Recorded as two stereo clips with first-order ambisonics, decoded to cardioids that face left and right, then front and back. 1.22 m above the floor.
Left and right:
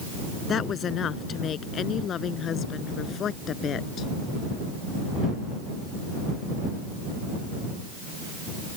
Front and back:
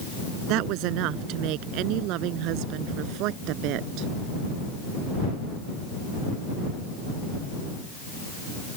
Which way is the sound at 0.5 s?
150° left.